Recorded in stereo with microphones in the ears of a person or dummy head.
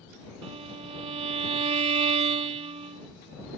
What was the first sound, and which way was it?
A violin, 35° right (ahead or behind).